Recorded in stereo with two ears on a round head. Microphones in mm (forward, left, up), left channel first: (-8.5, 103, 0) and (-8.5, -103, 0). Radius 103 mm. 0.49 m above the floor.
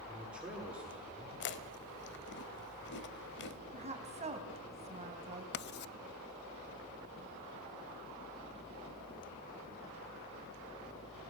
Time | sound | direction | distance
0.1 | a man speaking | 5° right (ahead or behind) | 8.5 m
1.4 | chewing | 50° left (ahead or behind) | 1.3 m
3.7 | a woman speaking | 30° right (ahead or behind) | 4 m
5.5 | writing | 50° left (ahead or behind) | 0.5 m